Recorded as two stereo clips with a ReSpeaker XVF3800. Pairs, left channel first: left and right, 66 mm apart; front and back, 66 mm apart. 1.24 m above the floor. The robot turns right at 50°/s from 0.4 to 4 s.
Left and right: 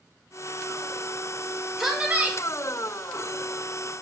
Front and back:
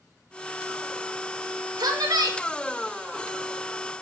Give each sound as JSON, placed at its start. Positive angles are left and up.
{"t": 1.8, "sound": "a woman speaking", "azimuth_deg": 180, "distance_m": 0.6}